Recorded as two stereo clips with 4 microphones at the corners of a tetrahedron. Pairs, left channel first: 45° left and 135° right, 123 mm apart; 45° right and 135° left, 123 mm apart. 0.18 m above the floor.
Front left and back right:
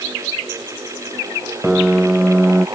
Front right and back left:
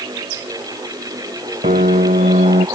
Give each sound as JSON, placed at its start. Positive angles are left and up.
{"t": 1.6, "sound": "a piano", "azimuth_deg": 140}